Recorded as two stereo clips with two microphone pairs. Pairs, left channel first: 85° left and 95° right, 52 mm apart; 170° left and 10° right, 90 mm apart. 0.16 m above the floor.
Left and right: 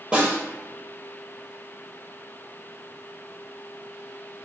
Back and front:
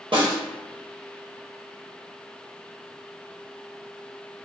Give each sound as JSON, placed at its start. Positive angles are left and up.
{"t": 0.1, "sound": "a snare drum", "azimuth_deg": -20, "distance_m": 1.3}